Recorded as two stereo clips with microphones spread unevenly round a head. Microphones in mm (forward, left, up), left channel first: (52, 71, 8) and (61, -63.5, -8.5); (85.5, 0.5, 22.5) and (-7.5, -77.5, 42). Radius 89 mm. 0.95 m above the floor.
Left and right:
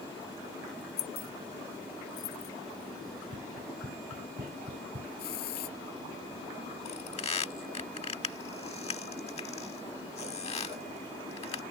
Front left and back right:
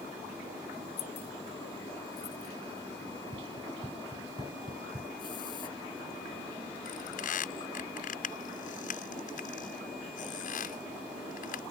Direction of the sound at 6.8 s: 50° left.